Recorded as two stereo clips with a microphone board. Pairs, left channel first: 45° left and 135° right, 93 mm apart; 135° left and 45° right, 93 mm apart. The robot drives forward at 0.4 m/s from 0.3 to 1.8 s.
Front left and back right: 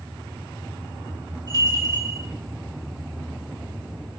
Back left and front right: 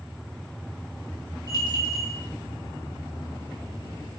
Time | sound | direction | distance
1.5 | a bell | straight behind | 1.6 m